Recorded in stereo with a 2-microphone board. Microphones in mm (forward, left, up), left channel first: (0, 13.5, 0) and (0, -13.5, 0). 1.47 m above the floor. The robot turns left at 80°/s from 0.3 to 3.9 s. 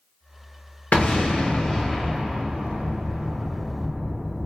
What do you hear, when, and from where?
0.9 s an explosion: 65° left (ahead or behind), 1.0 m; by 4.5 s 25° right (ahead or behind), 1.0 m